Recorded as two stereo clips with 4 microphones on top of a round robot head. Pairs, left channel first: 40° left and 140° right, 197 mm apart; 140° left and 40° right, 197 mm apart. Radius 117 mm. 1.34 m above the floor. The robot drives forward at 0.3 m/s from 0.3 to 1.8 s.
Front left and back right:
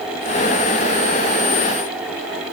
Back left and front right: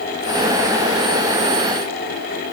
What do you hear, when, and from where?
Only background noise.